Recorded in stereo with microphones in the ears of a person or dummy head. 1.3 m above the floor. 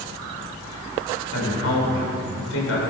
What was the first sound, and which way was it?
A woman speaking, 70° left (ahead or behind).